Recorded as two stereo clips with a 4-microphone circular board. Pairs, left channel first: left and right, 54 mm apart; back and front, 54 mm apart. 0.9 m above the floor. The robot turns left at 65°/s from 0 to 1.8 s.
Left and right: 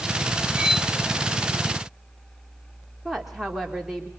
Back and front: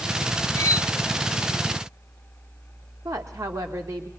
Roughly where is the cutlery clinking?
Behind.